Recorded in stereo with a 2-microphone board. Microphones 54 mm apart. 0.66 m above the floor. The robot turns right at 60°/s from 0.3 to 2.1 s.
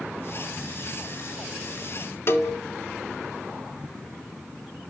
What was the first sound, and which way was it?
A cowbell, 50° left (ahead or behind).